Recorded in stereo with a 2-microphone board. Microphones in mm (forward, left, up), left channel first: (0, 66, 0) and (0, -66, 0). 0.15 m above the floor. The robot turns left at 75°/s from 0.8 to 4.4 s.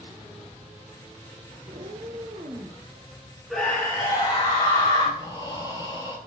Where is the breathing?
30° left (ahead or behind), 0.9 m.